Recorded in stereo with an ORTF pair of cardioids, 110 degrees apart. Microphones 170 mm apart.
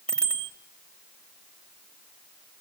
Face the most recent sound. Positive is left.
turn(degrees=5)